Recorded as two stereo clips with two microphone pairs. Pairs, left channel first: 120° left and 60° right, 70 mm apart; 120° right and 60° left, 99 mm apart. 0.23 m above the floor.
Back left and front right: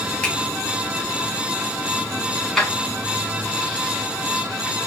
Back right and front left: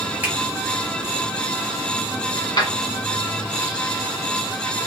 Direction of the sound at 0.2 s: 85° left.